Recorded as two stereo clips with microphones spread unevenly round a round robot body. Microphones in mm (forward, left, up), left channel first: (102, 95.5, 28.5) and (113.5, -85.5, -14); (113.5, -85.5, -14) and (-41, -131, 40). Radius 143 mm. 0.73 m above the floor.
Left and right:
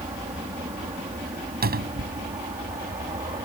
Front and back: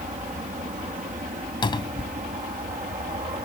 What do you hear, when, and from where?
0.0 s an aircraft: 140° right; by 3.5 s 135° right
1.6 s a cupboard door: 50° right